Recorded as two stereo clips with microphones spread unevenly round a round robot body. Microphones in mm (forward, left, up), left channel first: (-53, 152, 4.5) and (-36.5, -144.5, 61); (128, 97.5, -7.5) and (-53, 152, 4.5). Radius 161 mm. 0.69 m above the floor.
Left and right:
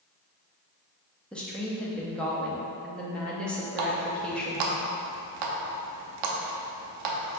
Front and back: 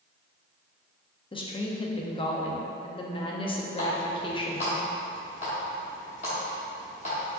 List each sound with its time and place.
1.3 s a woman speaking: 25° left, 0.7 m
3.8 s a running tap: 80° right, 0.7 m